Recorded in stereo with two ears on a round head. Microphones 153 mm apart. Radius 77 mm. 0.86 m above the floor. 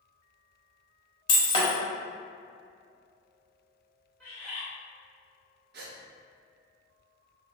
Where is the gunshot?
I don't hear a gunshot.